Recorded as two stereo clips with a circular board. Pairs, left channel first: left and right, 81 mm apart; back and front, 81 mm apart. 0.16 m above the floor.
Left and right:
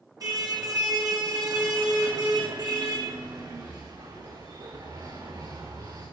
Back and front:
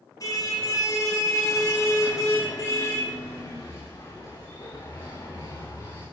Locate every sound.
0.2 s a car horn: 135° right, 3.5 m; by 6.0 s 125° right, 7 m